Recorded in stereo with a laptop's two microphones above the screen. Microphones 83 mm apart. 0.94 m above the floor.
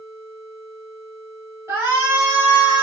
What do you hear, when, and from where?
1.7 s a shout: 30° right (ahead or behind), 2.5 m; by 2.8 s 15° right (ahead or behind), 1.7 m